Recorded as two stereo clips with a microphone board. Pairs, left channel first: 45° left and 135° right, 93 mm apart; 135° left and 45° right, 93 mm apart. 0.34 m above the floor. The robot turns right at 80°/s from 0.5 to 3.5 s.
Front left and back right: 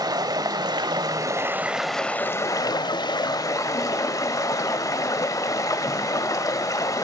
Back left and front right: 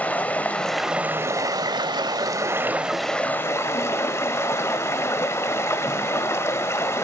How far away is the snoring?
I don't hear snoring.